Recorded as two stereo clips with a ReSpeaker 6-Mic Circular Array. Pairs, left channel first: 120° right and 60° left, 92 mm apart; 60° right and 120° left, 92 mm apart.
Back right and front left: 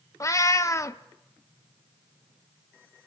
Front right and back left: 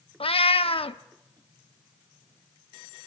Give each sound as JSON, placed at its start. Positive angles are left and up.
{"t": 0.2, "sound": "a cat meowing", "azimuth_deg": -65, "distance_m": 0.6}